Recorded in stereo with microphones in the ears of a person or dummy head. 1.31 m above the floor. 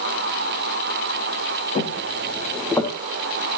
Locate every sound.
1.8 s footsteps: 35° left (ahead or behind), 3 m; by 2.9 s 15° left (ahead or behind), 3.5 m